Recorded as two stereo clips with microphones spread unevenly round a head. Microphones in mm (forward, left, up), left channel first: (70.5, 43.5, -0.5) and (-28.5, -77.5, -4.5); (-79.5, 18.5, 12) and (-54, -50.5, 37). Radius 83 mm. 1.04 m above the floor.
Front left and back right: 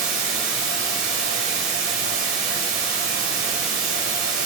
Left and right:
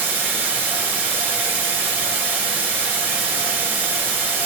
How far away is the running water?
About 3 m.